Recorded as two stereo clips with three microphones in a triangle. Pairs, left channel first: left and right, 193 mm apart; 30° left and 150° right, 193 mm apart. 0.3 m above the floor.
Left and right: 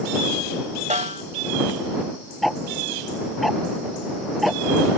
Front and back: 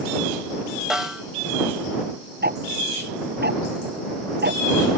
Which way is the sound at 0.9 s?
65° right.